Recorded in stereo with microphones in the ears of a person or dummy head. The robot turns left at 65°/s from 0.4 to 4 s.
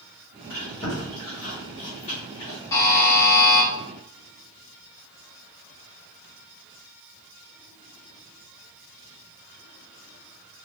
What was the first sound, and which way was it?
Chewing, centre (ahead or behind).